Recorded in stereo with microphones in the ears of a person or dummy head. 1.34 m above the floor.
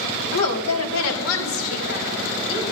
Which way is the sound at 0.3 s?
80° left.